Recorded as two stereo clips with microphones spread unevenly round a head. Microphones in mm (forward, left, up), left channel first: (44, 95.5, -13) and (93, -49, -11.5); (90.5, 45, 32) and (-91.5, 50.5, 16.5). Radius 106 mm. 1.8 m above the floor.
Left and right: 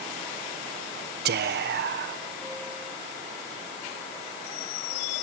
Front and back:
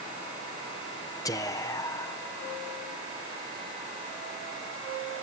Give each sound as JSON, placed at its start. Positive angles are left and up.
{"t": 1.2, "sound": "whispering", "azimuth_deg": -75}